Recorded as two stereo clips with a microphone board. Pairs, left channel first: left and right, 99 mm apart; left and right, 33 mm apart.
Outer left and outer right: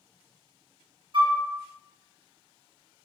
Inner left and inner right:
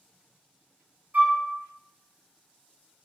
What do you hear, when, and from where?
1.1 s a flute: 55° right (ahead or behind), 0.7 m